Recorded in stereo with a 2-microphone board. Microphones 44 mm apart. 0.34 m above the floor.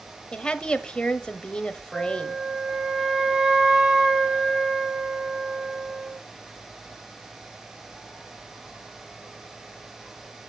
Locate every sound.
0.3 s a woman speaking: 20° left (ahead or behind), 1.2 m
1.9 s a flute: 20° right (ahead or behind), 1.1 m